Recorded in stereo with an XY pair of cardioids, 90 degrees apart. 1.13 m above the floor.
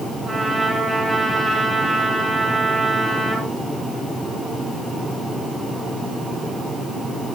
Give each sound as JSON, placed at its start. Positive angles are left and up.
{"t": 0.2, "sound": "a trumpet", "azimuth_deg": -20, "distance_m": 8.0}